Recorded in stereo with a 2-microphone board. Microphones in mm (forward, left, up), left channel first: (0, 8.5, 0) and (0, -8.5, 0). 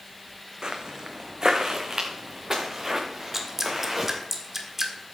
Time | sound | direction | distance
0.6 | footsteps | 50° right (ahead or behind) | 1.6 m
3.3 | dripping | 15° right (ahead or behind) | 1.5 m